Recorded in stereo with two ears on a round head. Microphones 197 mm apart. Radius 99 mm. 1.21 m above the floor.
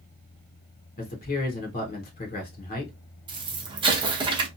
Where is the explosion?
20° right (ahead or behind), 0.8 m.